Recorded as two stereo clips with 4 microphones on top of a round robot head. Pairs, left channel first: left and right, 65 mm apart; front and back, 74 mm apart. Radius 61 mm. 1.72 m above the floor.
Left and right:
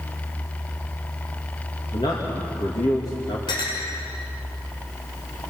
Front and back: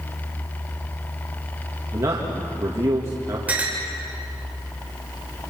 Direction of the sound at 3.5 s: 110° left.